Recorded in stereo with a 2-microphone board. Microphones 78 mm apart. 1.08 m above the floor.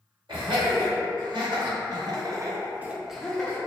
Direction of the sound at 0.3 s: 80° right.